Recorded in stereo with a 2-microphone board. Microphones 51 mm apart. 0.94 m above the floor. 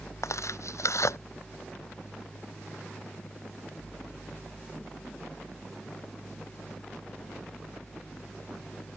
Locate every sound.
0.2 s tearing paper: 65° left (ahead or behind)